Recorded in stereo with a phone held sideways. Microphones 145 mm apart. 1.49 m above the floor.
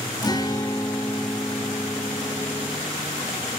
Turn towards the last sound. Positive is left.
turn(degrees=25)  # may be behind; listen again after turning